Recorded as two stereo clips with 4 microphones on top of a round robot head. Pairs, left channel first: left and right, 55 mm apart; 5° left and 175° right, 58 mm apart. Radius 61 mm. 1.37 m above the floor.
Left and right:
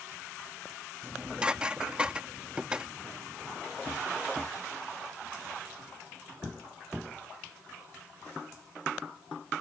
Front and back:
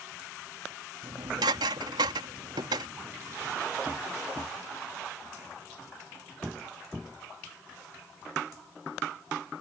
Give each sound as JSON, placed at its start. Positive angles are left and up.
{"t": 1.0, "sound": "dishes clattering", "azimuth_deg": -170}